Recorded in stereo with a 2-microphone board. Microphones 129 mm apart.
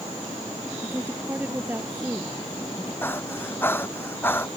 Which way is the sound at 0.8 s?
15° right (ahead or behind).